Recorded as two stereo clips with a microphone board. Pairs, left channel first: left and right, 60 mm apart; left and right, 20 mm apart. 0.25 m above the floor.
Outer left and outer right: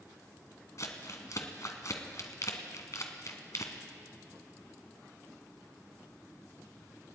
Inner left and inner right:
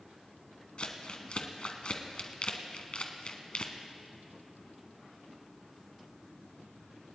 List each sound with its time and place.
0.8 s crumpling: 60° left (ahead or behind), 1.4 m